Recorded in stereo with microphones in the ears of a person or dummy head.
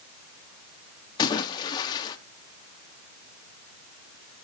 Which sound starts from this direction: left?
A splash, at 1.2 s.